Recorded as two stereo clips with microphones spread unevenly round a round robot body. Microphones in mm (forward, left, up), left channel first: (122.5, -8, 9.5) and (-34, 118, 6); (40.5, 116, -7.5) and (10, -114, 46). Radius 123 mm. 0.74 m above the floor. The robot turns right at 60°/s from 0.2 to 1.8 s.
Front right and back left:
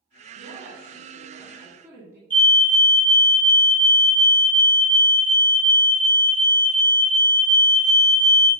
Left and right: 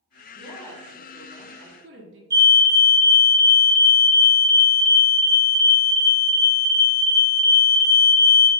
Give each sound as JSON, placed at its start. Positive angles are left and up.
{"t": 0.3, "sound": "a woman speaking", "azimuth_deg": 130, "distance_m": 1.8}
{"t": 2.3, "sound": "a fire alarm", "azimuth_deg": -10, "distance_m": 2.0}